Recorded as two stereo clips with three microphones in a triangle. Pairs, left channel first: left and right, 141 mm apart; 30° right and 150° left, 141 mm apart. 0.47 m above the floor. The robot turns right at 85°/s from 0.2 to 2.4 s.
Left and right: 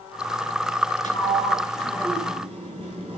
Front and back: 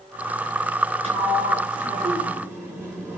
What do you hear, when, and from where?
1.0 s a sliding door: 110° left, 8 m; by 3.2 s 135° right, 8 m